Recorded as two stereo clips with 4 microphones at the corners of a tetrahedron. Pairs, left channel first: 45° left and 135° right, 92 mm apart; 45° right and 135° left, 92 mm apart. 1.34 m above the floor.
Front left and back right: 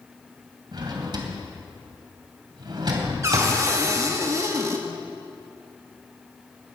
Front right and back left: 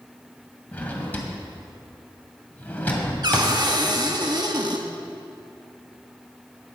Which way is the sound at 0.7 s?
115° right.